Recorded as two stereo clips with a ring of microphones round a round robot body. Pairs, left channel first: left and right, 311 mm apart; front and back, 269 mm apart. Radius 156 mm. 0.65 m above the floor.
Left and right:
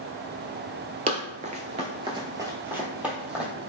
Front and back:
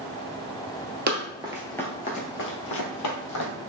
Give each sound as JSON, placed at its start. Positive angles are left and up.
{"t": 1.1, "sound": "running footsteps", "azimuth_deg": -150, "distance_m": 0.7}